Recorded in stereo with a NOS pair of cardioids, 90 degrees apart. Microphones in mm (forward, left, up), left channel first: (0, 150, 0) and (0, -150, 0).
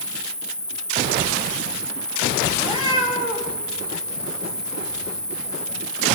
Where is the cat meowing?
15° right, 5 m.